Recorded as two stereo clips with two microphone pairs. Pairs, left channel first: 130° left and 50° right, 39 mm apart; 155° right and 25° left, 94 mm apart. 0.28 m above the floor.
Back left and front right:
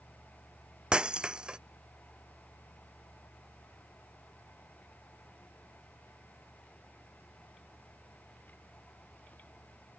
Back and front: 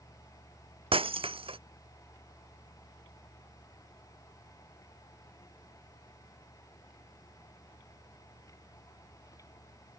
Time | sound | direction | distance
0.9 | breaking glass | 15° left | ?